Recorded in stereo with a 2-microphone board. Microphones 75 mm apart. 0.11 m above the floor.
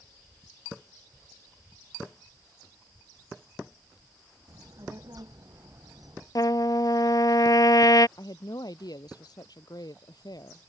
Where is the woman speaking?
65° left (ahead or behind).